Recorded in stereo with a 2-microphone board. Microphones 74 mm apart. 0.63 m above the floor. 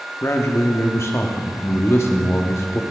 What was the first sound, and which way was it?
A man speaking, 35° left (ahead or behind).